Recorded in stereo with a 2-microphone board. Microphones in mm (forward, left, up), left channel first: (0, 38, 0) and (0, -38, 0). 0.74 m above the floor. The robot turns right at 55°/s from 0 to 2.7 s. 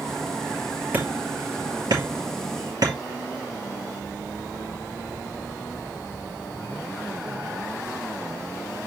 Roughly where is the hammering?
Right.